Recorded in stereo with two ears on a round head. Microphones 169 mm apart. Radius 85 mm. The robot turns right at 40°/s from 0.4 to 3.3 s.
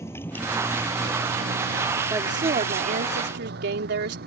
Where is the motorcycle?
15° left (ahead or behind); by 4.3 s 50° right (ahead or behind).